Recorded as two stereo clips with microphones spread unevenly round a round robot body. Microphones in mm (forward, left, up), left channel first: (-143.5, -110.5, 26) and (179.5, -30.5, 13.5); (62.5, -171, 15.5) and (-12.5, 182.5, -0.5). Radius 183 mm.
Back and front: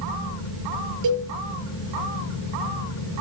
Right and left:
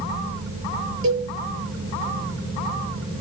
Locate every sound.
1.0 s a cowbell: 45° left, 7.5 m